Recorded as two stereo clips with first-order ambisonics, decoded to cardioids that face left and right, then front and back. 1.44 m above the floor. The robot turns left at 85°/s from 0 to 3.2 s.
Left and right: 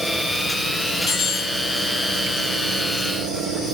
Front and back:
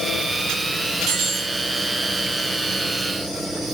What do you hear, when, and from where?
1.1 s cutlery clinking: 155° left, 1.6 m; by 3.8 s 25° right, 1.6 m